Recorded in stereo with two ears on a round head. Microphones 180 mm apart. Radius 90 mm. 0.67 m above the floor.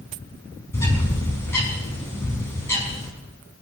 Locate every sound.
0.7 s a bird: 15° left (ahead or behind), 5 m